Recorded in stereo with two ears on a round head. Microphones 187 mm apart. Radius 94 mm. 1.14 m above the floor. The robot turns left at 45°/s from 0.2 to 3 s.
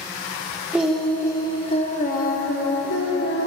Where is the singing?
175° right, 0.7 m; by 3.5 s 85° left, 0.7 m.